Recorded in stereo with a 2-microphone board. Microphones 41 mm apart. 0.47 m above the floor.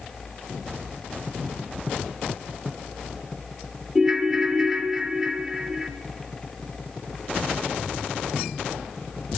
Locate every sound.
4.0 s a ringtone: 10° right (ahead or behind), 0.5 m